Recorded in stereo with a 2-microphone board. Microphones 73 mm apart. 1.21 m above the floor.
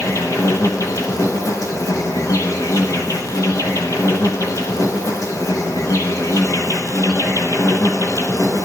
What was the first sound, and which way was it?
An insect, 50° left (ahead or behind).